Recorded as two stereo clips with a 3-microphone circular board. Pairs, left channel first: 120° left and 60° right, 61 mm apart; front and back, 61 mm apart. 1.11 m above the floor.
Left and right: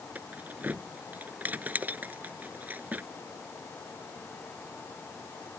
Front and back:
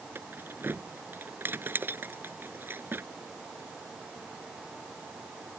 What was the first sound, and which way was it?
Keys jangling, 125° right.